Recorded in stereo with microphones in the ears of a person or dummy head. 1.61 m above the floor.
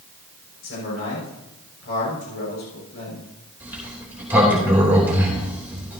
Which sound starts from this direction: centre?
A sliding door, at 3.6 s.